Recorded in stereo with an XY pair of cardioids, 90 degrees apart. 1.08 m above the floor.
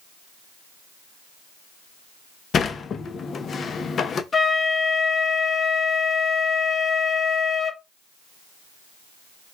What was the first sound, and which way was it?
A sliding door, 55° left.